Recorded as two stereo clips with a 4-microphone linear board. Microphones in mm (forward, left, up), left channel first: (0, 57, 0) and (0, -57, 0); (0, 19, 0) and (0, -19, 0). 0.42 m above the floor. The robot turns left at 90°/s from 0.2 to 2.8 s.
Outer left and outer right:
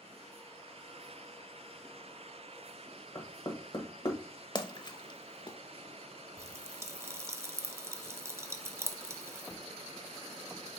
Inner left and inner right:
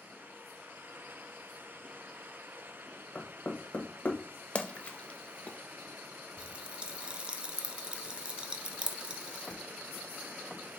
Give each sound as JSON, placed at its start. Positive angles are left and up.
{"t": 3.1, "sound": "knocking", "side_deg": 35, "distance_m": 1.2}
{"t": 4.5, "sound": "a splash", "side_deg": 35, "distance_m": 0.6}
{"t": 6.4, "sound": "a pop", "side_deg": -25, "distance_m": 0.5}